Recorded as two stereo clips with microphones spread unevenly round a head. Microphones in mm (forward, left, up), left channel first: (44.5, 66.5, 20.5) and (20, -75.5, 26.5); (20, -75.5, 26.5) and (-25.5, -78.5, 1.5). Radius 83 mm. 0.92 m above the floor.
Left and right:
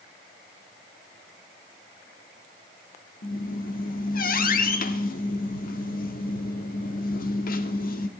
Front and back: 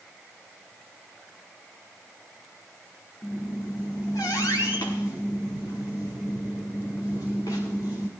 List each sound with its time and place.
3.2 s a squeak: 55° left, 1.1 m